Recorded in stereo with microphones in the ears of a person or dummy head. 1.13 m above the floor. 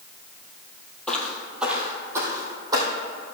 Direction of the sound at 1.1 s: 5° left (ahead or behind).